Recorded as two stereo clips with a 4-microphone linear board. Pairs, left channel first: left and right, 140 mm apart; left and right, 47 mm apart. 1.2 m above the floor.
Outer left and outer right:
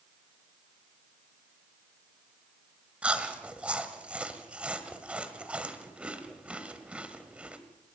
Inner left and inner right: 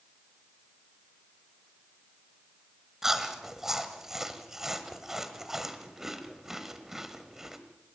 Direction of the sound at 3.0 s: 10° right (ahead or behind).